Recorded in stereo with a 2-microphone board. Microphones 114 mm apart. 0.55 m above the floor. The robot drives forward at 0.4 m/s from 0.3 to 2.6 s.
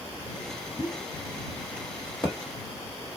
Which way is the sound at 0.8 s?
35° left (ahead or behind).